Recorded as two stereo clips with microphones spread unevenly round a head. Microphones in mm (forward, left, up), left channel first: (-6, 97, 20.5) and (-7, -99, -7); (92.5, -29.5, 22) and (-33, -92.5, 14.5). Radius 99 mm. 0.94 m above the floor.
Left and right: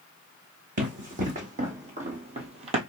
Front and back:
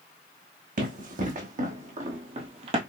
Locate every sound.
0.8 s running footsteps: 140° right, 2 m; by 2.8 s 145° right, 1.1 m